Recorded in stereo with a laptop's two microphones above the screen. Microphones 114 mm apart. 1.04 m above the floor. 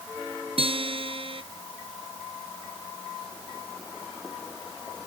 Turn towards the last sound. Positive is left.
turn(degrees=-55)  # may be behind; listen again after turning